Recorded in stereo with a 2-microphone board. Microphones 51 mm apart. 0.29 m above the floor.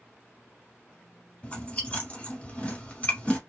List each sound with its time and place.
1.4 s chewing: 25° left (ahead or behind), 1.3 m